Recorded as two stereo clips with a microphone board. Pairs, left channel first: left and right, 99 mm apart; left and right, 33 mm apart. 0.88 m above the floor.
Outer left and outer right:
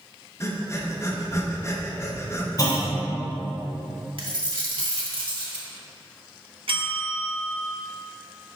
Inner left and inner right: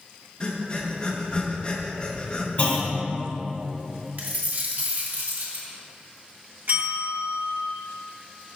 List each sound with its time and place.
0.4 s breathing: 30° left (ahead or behind), 0.7 m
2.6 s a clunk: 40° left (ahead or behind), 1.4 m
4.2 s a dropped coin: 60° right (ahead or behind), 1.3 m
6.7 s a bell: 65° right (ahead or behind), 1.2 m